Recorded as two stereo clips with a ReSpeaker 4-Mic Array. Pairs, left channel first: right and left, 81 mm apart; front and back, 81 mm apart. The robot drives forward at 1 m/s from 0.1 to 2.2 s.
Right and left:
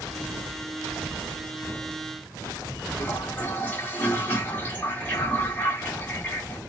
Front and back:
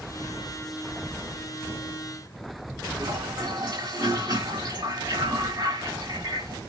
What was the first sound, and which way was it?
A toilet flushing, 155° right.